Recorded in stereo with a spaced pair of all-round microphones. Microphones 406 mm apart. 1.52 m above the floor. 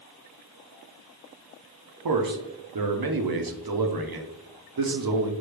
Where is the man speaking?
60° right (ahead or behind), 0.5 m.